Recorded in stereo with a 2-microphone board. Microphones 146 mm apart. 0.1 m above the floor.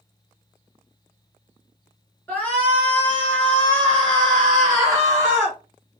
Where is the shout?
10° left (ahead or behind), 1.7 m; by 5.6 s 5° left (ahead or behind), 1.9 m.